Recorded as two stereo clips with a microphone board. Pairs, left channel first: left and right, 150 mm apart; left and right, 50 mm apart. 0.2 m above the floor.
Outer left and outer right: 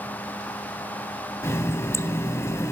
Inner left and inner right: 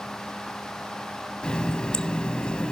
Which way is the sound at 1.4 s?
20° left (ahead or behind).